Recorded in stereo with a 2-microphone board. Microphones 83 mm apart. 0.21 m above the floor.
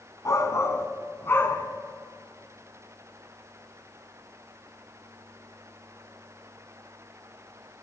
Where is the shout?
40° left (ahead or behind), 2 m; by 1.7 s 25° left (ahead or behind), 2.5 m.